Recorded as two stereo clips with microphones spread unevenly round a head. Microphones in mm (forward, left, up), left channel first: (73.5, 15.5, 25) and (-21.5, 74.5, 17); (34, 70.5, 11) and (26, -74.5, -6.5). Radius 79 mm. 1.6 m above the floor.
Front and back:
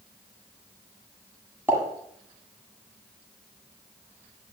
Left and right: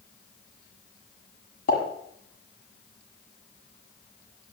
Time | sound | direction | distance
1.7 | a pop | 75° left | 7.5 m